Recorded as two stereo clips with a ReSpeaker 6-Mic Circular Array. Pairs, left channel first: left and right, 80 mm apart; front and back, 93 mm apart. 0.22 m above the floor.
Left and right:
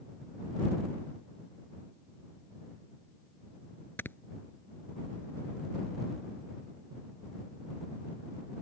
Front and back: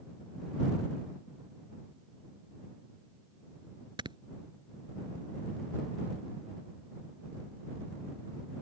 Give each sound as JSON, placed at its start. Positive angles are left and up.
{"t": 4.0, "sound": "snoring", "azimuth_deg": 150}